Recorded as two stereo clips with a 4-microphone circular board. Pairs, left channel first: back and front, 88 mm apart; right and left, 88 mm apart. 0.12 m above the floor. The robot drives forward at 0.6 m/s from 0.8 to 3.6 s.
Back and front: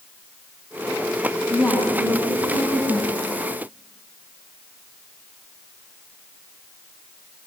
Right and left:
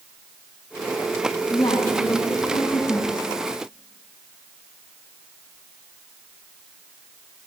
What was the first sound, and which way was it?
A woman speaking, 115° right.